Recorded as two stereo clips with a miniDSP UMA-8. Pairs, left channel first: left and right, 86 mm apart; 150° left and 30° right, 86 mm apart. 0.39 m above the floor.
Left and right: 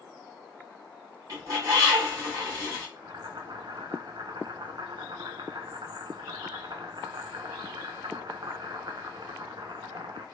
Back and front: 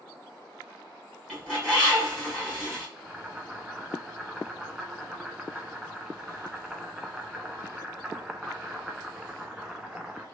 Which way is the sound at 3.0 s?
110° right.